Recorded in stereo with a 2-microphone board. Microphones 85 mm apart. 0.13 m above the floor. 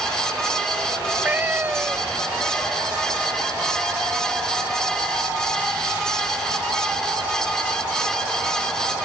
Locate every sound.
1.0 s a cat meowing: 20° right (ahead or behind)